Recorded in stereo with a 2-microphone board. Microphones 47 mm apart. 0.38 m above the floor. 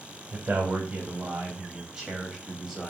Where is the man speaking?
35° right (ahead or behind), 2.5 m; by 2.9 s centre (ahead or behind), 2.5 m.